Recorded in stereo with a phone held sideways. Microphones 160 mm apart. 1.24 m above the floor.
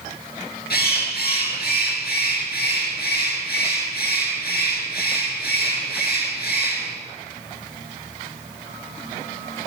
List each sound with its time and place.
0.7 s a bird: 80° left, 5 m